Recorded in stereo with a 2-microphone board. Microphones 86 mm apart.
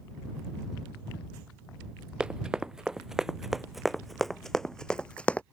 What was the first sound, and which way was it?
Running footsteps, 10° right (ahead or behind).